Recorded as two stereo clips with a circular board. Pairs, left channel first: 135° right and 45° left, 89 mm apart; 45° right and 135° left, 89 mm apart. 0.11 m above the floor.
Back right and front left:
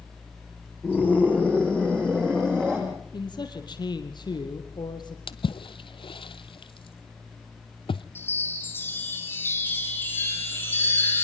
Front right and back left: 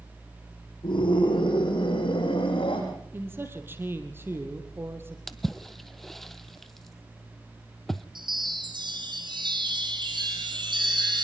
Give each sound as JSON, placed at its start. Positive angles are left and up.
{"t": 0.8, "sound": "a scream", "azimuth_deg": -50, "distance_m": 5.0}
{"t": 3.1, "sound": "a man speaking", "azimuth_deg": -160, "distance_m": 3.0}
{"t": 5.3, "sound": "a splash", "azimuth_deg": -130, "distance_m": 0.8}
{"t": 8.2, "sound": "a chime", "azimuth_deg": 160, "distance_m": 4.5}